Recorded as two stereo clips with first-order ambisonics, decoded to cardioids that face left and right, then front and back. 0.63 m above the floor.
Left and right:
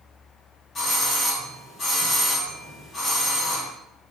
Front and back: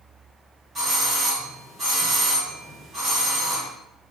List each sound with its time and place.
0.8 s a doorbell: 140° left, 1.1 m